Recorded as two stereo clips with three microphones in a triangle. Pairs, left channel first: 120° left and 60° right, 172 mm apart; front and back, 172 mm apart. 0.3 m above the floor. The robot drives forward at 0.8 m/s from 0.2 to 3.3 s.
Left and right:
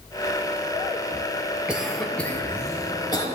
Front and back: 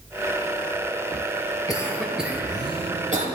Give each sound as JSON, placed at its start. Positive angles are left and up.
{"t": 1.7, "sound": "a cough", "azimuth_deg": 15, "distance_m": 0.9}